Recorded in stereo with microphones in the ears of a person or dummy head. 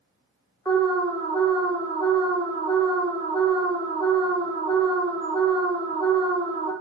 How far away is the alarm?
About 0.6 m.